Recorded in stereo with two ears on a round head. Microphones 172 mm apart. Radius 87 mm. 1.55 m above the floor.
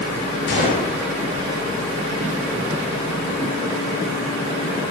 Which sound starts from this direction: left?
A gunshot, at 0.5 s.